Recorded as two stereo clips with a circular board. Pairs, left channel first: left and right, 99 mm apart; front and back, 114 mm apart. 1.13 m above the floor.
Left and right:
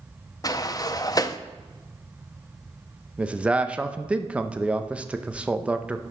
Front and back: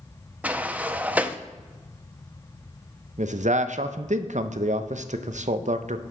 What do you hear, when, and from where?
0.4 s a sliding door: 110° left, 0.5 m
3.2 s a man speaking: 170° right, 0.6 m